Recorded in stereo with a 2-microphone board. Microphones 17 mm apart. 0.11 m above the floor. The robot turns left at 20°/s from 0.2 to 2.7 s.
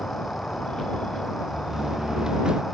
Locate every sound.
0.0 s an insect: 90° left; by 2.7 s 40° left
1.5 s a door slam: 20° right (ahead or behind); by 2.6 s 45° right (ahead or behind)